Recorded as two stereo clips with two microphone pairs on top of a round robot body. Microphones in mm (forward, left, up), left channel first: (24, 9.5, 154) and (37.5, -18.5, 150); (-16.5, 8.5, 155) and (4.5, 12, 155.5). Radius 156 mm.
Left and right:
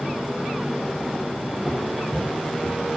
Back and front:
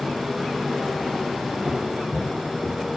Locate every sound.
1.6 s footsteps: 30° left, 4 m; by 2.8 s 35° left, 4.5 m